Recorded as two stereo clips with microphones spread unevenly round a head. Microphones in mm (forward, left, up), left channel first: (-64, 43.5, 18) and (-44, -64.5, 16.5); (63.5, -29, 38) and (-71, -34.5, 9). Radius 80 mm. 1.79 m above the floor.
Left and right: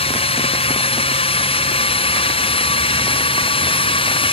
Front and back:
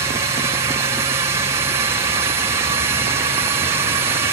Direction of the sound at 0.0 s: 120° left.